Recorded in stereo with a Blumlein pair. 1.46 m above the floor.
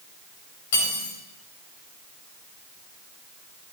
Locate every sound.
0.7 s cutlery clinking: 55° left, 3.5 m